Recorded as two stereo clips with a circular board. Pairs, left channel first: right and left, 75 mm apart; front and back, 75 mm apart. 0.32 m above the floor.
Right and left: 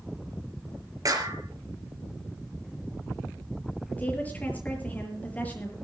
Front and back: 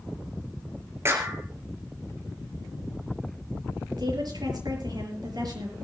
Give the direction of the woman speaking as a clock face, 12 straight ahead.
5 o'clock.